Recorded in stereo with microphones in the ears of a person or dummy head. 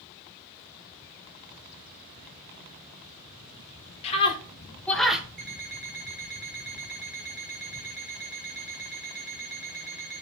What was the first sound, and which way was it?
A scream, 30° left (ahead or behind).